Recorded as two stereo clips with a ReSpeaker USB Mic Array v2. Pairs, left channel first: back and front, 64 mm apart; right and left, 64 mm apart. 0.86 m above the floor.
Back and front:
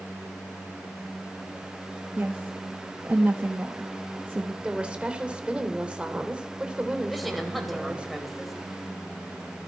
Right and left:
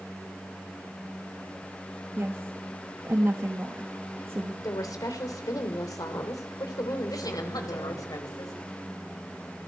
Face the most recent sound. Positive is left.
turn(degrees=-90)